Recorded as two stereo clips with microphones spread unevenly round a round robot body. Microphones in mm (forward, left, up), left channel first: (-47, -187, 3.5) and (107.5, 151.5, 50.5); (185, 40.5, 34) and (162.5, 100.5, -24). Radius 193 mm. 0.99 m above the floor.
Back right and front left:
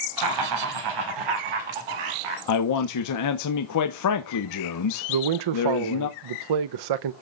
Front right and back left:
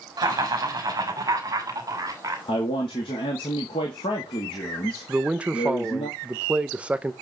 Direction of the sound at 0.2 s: 110° left.